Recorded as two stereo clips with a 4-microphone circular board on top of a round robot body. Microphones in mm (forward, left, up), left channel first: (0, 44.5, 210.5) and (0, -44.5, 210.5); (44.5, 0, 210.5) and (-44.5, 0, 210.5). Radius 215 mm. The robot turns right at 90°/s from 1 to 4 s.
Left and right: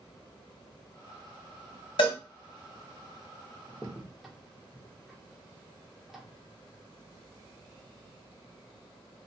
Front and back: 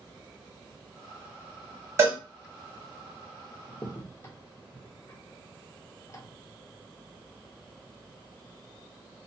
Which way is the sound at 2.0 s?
120° left.